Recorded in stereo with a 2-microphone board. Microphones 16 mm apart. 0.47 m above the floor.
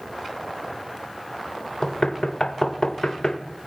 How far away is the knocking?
About 1.2 m.